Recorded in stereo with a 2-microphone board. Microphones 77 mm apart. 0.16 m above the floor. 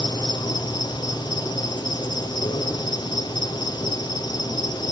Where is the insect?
70° left (ahead or behind), 5 m.